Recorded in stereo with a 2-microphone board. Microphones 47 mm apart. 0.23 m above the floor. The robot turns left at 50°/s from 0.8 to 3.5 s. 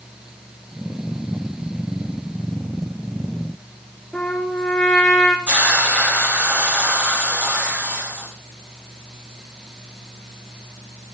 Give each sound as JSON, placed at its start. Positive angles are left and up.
{"t": 4.1, "sound": "a trumpet", "side_deg": 10, "distance_m": 4.0}
{"t": 5.5, "sound": "a hiss", "side_deg": -35, "distance_m": 6.0}